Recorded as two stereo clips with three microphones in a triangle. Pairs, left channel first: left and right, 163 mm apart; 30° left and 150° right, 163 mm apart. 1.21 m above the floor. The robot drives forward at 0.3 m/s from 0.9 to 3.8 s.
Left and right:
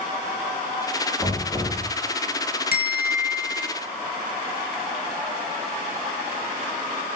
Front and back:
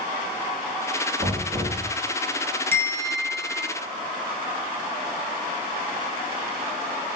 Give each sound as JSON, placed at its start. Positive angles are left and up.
{"t": 1.2, "sound": "knocking", "azimuth_deg": 180, "distance_m": 1.8}
{"t": 2.7, "sound": "a bell", "azimuth_deg": 105, "distance_m": 0.7}